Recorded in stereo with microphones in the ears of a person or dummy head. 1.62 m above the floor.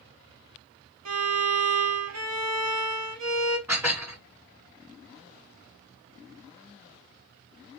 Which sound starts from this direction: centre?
Dishes clattering, at 3.7 s.